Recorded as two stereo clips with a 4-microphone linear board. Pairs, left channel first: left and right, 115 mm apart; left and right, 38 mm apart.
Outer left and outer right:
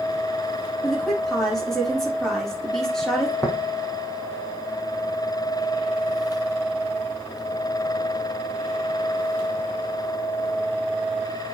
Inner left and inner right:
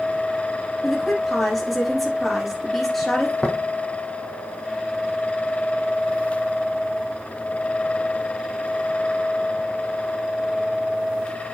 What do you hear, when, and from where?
0.8 s a woman speaking: 5° left (ahead or behind), 6.5 m
3.4 s tapping: 30° left (ahead or behind), 2.5 m